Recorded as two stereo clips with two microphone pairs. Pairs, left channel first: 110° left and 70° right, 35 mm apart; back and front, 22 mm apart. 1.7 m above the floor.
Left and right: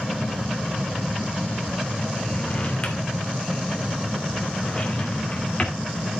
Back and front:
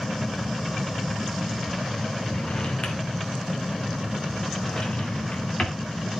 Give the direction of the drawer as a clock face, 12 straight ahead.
7 o'clock.